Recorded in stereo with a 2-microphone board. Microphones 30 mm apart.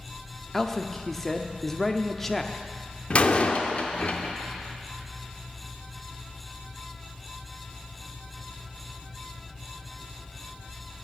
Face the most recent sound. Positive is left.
turn(degrees=45)  # may be behind; listen again after turning